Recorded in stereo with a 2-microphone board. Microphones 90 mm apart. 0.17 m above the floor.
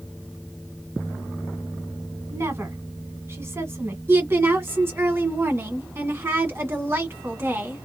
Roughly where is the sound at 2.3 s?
Right.